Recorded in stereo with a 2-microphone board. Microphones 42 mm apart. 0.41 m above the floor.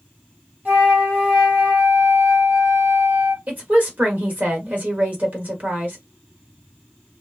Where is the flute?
45° right (ahead or behind), 1.2 m.